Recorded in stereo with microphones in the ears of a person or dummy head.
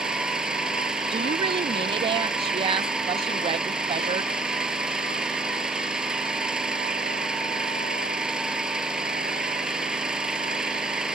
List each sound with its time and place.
0.0 s an engine running: centre (ahead or behind)
1.1 s a woman speaking: 25° right (ahead or behind)